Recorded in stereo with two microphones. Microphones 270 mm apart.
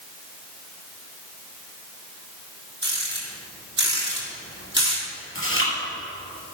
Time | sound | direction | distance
2.8 | a rattle | 40° right (ahead or behind) | 3.5 m
5.3 | chewing | 50° left (ahead or behind) | 3.5 m